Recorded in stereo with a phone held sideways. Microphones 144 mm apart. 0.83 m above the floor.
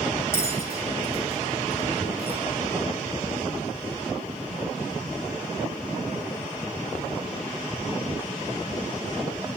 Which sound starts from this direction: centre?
A bell, at 0.3 s.